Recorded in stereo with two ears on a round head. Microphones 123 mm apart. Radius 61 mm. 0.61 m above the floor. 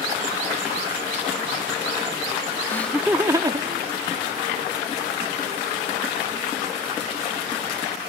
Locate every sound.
2.7 s laughter: 15° left (ahead or behind); by 4.7 s 60° right (ahead or behind)